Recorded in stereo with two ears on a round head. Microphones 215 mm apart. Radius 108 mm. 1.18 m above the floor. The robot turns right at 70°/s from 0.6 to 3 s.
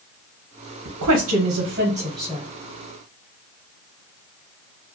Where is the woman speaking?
90° right, 0.7 m; by 2.4 s 20° left, 0.7 m.